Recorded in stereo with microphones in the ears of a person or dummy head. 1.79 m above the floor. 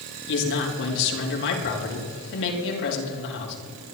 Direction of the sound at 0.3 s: 70° left (ahead or behind).